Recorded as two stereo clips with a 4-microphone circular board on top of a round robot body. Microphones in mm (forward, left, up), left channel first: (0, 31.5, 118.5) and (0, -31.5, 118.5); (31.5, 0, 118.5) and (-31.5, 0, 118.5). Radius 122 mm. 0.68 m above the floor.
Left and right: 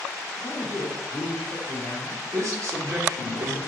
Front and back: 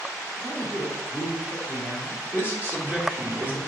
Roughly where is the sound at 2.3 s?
Behind right.